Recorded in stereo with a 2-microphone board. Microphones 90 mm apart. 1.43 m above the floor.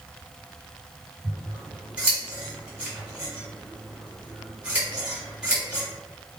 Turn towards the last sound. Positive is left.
turn(degrees=-10)  # may be behind; listen again after turning